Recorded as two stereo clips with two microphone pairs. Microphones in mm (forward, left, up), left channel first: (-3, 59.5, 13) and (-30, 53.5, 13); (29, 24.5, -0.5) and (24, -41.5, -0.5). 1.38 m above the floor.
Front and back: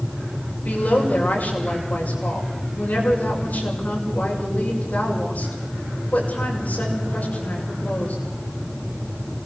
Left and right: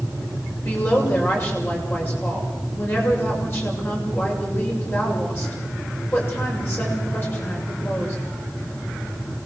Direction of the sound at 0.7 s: 30° left.